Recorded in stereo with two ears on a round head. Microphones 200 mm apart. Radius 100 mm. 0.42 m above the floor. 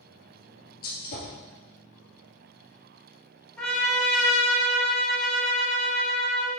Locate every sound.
0.8 s a gunshot: 45° left (ahead or behind), 2.5 m
3.6 s a trumpet: centre (ahead or behind), 1.5 m